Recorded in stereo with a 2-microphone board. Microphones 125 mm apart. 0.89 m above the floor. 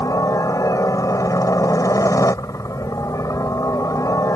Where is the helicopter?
25° left (ahead or behind).